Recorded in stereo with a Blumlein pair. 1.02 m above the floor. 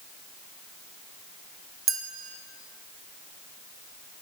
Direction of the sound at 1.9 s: 20° right.